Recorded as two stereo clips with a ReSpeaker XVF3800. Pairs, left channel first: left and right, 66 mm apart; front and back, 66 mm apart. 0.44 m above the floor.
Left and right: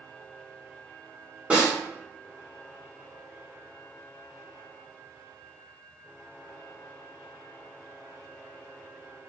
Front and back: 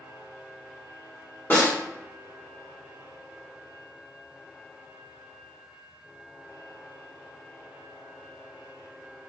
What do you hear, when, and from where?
1.5 s a snare drum: 30° right, 1.4 m